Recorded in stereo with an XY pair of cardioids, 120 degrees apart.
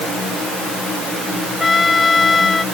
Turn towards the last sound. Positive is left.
turn(degrees=20)